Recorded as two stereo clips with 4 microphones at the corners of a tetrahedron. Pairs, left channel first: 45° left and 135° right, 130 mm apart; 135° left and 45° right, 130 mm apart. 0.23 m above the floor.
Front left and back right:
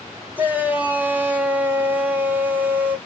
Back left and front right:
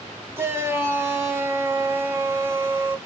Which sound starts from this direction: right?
A shout, at 0.4 s.